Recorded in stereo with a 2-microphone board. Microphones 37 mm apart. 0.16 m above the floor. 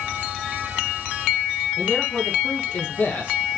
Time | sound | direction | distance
1.8 | a man speaking | 75° left (ahead or behind) | 4 m